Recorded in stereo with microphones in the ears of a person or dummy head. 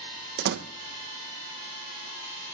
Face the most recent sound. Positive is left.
turn(degrees=-55)  # may be behind; listen again after turning